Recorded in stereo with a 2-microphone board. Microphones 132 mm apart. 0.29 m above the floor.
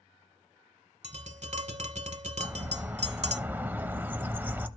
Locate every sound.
1.0 s tapping: 60° right (ahead or behind), 0.7 m
2.4 s a bird: 15° right (ahead or behind), 0.5 m